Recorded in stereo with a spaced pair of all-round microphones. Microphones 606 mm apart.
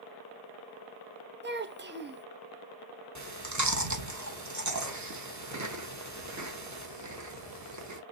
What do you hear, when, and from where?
1.4 s a child speaking: 20° right (ahead or behind), 0.6 m
3.1 s chewing: 30° right (ahead or behind), 0.8 m